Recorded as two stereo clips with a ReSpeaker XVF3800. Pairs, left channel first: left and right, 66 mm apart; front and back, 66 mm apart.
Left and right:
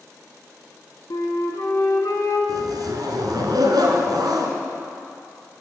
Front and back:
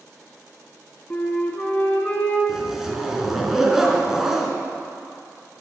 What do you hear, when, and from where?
1.1 s a flute: 65° left, 1.1 m
2.5 s a zipper: 95° right, 0.9 m